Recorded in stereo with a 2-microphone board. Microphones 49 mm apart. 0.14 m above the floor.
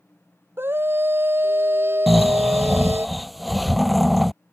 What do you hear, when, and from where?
0.6 s a scream: 50° right (ahead or behind)
2.1 s snoring: centre (ahead or behind)